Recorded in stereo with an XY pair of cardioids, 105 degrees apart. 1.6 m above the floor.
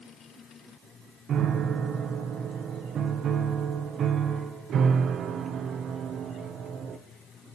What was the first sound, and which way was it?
A piano, 60° right.